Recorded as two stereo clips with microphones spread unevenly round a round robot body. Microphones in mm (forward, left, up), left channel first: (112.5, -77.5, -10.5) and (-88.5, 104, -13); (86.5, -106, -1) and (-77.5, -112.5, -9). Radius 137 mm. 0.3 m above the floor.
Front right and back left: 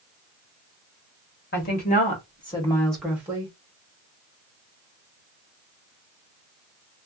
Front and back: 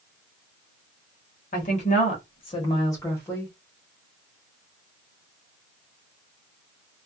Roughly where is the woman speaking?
Ahead.